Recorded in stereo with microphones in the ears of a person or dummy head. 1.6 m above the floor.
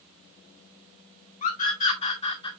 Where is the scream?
45° left (ahead or behind), 2.5 m; by 2.5 s 30° left (ahead or behind), 2 m.